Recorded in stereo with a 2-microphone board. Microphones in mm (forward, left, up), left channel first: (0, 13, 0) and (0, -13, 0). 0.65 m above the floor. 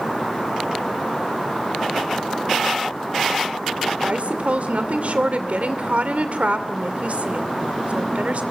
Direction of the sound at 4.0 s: 65° right (ahead or behind).